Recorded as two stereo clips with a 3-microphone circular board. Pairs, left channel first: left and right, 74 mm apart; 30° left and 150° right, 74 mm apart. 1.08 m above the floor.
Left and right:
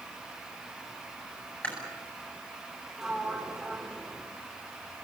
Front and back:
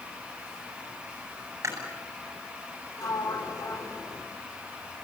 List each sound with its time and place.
1.6 s chewing: 160° left, 9 m
3.0 s a sliding door: 5° right, 3.5 m